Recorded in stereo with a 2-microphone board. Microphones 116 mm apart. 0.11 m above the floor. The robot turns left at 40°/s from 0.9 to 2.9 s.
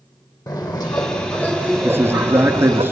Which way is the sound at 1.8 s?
20° right (ahead or behind).